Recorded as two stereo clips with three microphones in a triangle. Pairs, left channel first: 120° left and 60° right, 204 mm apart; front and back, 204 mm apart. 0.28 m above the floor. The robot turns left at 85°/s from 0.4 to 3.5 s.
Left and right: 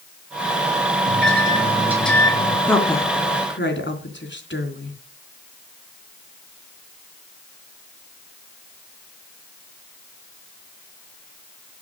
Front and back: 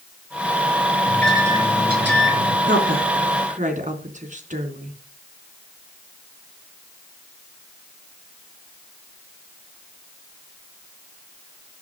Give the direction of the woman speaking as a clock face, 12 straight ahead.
5 o'clock.